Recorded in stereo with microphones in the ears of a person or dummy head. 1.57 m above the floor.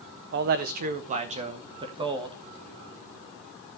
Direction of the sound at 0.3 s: 40° right (ahead or behind).